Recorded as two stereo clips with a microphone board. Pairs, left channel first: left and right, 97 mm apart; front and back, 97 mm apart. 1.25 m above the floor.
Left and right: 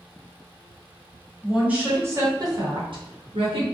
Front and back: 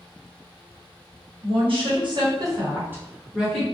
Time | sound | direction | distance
1.4 | a woman speaking | 170° right | 1.1 m